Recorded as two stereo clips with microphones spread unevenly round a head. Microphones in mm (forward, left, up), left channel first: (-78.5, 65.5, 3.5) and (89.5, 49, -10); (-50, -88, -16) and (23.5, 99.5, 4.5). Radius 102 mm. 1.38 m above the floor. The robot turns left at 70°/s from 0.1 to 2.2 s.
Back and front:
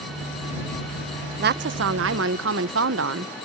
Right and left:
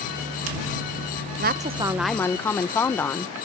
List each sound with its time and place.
1.4 s a woman speaking: 25° left; by 3.3 s 30° right